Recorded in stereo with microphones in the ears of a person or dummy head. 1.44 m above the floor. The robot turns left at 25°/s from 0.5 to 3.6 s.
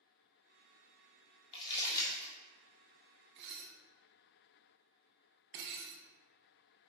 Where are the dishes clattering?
60° right (ahead or behind), 0.7 m.